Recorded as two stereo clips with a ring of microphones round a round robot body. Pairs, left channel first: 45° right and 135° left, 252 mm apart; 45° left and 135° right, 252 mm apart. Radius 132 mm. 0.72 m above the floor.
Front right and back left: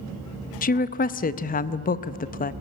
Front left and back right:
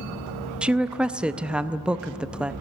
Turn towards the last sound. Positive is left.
turn(degrees=-50)